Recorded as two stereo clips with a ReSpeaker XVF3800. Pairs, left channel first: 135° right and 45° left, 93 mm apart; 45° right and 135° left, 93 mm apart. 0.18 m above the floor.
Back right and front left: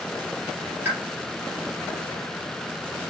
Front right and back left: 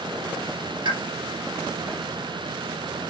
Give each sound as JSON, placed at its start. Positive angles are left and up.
{"t": 0.8, "sound": "a pop", "azimuth_deg": 110, "distance_m": 3.5}